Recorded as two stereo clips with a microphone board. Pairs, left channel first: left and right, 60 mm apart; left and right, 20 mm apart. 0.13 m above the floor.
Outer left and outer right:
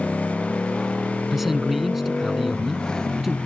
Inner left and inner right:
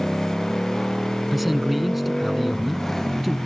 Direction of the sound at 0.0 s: 10° left (ahead or behind).